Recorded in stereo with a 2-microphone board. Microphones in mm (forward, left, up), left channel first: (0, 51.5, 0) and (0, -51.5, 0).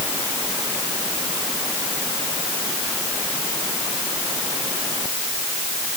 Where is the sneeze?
I don't hear a sneeze.